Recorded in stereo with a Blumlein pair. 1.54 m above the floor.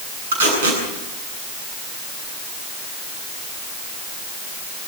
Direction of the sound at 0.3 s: 65° right.